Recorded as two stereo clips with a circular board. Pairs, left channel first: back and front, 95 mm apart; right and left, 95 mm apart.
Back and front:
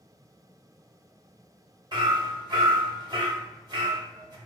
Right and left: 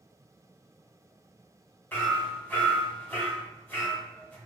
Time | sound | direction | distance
1.9 | hammering | 25° right | 0.8 m